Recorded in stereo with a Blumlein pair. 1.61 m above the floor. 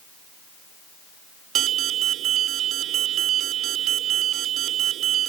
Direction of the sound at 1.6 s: 30° right.